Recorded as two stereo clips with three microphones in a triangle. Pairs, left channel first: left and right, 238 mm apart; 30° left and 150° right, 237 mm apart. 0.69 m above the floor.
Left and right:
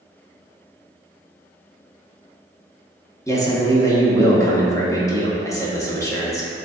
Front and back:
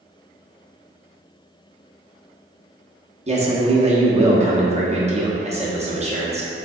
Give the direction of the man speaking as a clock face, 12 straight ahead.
7 o'clock.